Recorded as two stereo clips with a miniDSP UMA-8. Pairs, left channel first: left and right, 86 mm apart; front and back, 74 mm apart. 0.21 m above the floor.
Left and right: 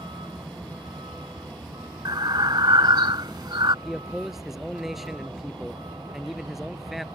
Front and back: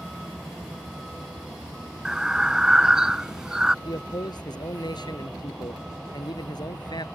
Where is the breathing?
100° right.